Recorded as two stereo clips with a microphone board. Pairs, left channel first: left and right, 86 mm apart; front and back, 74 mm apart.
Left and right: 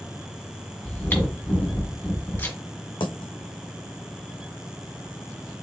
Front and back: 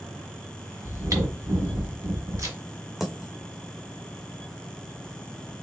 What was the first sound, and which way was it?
Chewing, 150° left.